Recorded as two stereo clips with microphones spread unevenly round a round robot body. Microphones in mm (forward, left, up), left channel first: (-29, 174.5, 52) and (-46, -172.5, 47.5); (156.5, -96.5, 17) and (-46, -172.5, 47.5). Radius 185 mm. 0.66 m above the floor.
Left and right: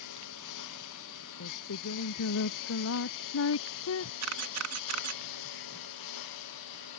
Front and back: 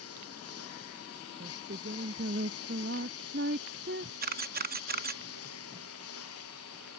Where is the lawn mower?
45° left; by 7.0 s 55° left.